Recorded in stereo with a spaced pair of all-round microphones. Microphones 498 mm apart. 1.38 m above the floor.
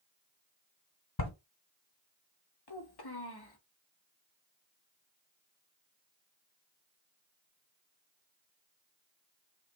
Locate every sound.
1.2 s writing: 35° left (ahead or behind), 1.7 m
2.7 s a child speaking: 50° left (ahead or behind), 1.0 m